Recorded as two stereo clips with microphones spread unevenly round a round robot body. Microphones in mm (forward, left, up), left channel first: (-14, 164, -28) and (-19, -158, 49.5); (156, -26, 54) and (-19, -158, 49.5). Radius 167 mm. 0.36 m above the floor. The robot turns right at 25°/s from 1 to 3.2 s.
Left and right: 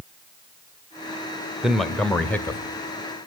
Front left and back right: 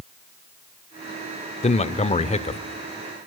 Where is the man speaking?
20° left, 1.0 m; by 2.6 s 45° left, 1.0 m.